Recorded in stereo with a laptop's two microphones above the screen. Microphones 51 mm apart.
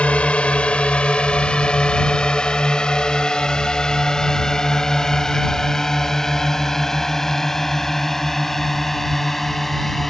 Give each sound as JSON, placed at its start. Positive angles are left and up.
{"t": 0.0, "sound": "a drone", "side_deg": 25}